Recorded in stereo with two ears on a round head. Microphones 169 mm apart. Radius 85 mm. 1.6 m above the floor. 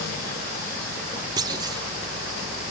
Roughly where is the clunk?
Right.